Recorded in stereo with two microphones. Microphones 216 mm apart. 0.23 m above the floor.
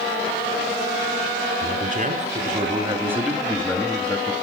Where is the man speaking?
45° right (ahead or behind), 2 m; by 4.3 s 30° left (ahead or behind), 1.6 m.